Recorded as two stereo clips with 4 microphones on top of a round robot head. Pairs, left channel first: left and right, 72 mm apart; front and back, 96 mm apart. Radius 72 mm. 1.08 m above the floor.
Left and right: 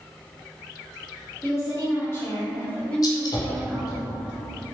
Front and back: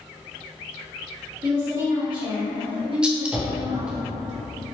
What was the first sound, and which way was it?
A woman speaking, 140° left.